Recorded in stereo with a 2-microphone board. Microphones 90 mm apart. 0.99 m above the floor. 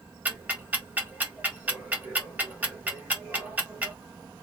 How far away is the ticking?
About 1.7 m.